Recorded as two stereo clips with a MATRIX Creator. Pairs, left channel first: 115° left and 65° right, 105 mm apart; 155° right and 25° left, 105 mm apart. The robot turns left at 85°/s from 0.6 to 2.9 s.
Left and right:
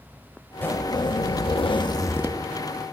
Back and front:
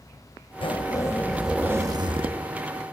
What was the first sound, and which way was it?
A zipper, straight behind.